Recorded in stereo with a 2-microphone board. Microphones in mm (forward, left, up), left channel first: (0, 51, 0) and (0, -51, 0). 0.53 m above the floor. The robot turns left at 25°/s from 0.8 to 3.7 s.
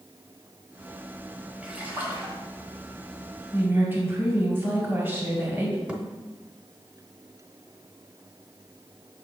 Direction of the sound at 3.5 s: 20° right (ahead or behind).